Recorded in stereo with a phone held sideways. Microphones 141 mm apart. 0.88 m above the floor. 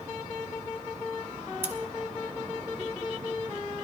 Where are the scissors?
15° right (ahead or behind), 1.7 m.